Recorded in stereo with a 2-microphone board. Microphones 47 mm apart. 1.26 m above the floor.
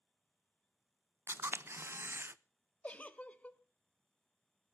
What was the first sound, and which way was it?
A camera shutter, 55° right (ahead or behind).